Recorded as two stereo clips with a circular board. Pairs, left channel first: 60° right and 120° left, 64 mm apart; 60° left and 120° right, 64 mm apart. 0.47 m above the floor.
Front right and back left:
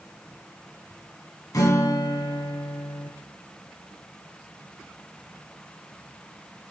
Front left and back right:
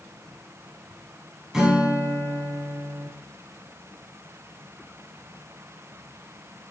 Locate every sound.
1.5 s a guitar: 40° right, 0.9 m